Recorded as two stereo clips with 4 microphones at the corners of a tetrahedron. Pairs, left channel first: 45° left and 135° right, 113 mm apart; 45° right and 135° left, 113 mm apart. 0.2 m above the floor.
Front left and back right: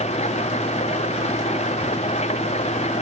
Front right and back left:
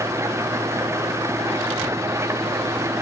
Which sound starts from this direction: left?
An engine running, at 0.0 s.